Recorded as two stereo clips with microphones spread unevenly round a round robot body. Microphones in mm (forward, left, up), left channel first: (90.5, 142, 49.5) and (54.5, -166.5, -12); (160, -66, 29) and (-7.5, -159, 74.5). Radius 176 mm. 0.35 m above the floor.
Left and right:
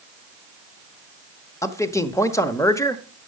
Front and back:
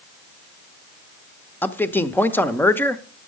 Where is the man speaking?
10° right, 1.0 m.